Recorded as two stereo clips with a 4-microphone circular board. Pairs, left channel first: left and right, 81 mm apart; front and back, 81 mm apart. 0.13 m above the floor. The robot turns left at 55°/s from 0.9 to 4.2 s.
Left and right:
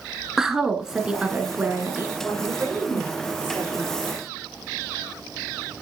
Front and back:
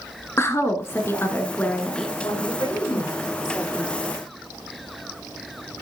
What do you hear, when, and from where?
0.4 s a woman speaking: 10° right, 1.4 m; by 2.1 s 75° right, 1.4 m
2.2 s a woman speaking: 5° right, 7 m; by 4.0 s 105° right, 7 m